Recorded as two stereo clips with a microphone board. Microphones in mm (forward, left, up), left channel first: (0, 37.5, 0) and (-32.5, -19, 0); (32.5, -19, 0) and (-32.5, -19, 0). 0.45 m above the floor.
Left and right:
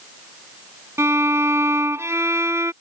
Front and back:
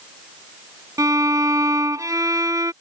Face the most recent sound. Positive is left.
turn(degrees=-160)